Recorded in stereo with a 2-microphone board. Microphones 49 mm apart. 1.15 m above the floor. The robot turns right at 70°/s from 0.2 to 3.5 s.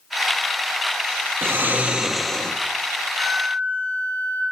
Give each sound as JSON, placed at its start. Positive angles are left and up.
{"t": 1.4, "sound": "snoring", "azimuth_deg": -60, "distance_m": 1.1}
{"t": 3.1, "sound": "a flute", "side_deg": -45, "distance_m": 9.5}